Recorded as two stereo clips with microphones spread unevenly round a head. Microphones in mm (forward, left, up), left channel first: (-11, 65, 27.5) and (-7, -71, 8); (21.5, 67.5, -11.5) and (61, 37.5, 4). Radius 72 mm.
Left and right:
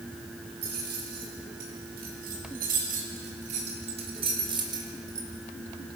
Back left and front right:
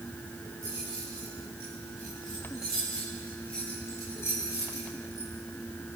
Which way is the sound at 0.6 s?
105° right.